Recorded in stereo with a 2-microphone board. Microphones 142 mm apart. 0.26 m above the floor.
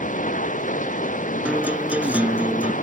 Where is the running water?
65° left (ahead or behind).